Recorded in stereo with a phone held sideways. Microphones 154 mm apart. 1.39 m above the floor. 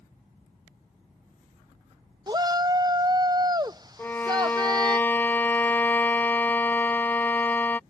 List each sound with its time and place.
2.3 s a shout: 25° right (ahead or behind)
4.0 s a violin: 15° left (ahead or behind)